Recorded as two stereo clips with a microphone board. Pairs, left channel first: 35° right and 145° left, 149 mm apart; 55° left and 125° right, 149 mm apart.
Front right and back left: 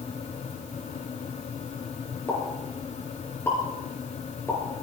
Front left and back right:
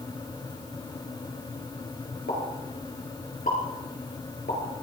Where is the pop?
40° left, 5 m.